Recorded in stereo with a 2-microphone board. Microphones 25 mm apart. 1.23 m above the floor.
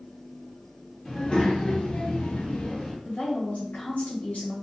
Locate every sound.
1.1 s a child speaking: 30° left (ahead or behind), 1.1 m; by 3.0 s 40° left (ahead or behind), 0.7 m
3.0 s a woman speaking: 70° left (ahead or behind), 1.3 m